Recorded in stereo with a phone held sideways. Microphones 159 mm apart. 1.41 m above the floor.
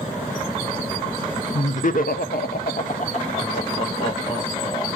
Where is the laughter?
45° left (ahead or behind), 0.9 m; by 4.9 s 30° left (ahead or behind), 2.5 m.